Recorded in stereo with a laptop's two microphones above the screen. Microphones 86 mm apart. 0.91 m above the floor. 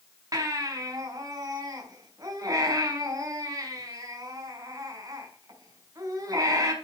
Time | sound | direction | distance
0.3 | a baby crying | 45° right (ahead or behind) | 4.5 m